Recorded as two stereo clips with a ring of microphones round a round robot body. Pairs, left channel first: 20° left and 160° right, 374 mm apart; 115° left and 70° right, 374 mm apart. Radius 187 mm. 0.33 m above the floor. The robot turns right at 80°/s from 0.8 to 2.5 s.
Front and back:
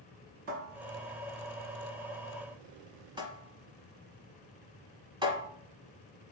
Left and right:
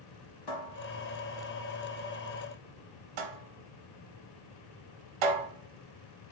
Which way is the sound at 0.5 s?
145° left.